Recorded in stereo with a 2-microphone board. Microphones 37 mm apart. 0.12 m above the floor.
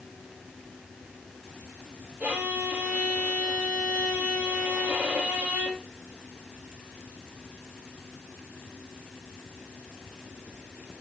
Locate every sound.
2.2 s a violin: 45° right (ahead or behind), 3.5 m